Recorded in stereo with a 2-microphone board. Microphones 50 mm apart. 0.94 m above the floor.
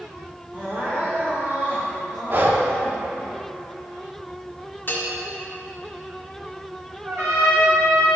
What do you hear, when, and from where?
0.5 s crying: 55° right (ahead or behind), 2 m
2.3 s breathing: 45° right (ahead or behind), 0.7 m
4.9 s a bell: 45° left (ahead or behind), 1.4 m
7.0 s a trumpet: 80° right, 2.5 m